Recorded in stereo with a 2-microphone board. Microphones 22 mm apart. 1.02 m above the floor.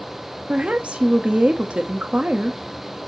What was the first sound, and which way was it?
A woman speaking, 60° right (ahead or behind).